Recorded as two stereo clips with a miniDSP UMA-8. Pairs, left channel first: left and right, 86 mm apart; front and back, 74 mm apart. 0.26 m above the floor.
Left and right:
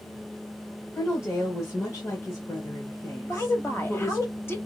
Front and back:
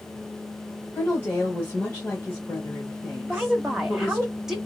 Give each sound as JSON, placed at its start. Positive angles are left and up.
{"t": 0.9, "sound": "a woman speaking", "azimuth_deg": 55, "distance_m": 1.2}
{"t": 3.2, "sound": "a woman speaking", "azimuth_deg": 110, "distance_m": 1.0}